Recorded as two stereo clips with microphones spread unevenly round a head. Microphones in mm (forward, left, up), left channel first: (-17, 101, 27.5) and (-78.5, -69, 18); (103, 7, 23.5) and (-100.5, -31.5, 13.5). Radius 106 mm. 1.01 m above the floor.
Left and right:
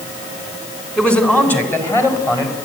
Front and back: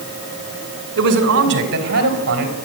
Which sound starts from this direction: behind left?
A man speaking, at 1.0 s.